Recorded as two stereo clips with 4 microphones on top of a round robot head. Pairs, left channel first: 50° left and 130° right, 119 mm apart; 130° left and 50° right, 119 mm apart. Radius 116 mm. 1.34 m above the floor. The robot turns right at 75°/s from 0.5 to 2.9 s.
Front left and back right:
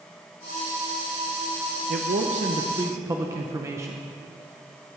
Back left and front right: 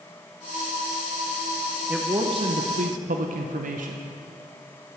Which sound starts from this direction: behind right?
A man speaking, at 1.9 s.